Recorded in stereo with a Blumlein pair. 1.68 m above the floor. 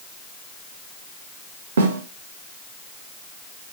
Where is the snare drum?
65° right, 2.5 m.